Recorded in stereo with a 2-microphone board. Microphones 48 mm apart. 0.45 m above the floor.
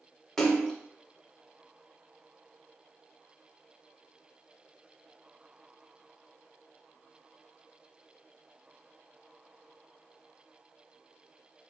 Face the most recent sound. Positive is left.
turn(degrees=5)  # may be behind; listen again after turning